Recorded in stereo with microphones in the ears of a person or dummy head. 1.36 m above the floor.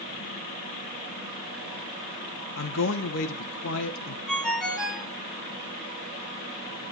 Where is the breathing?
I don't hear breathing.